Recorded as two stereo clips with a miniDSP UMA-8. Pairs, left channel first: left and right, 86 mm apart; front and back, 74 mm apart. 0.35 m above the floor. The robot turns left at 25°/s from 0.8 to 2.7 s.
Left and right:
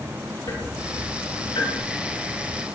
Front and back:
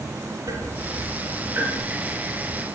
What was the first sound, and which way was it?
Ticking, 140° left.